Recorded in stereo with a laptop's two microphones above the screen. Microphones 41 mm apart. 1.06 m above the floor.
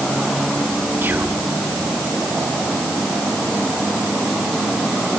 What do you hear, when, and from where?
1.0 s whispering: 55° right (ahead or behind), 3.5 m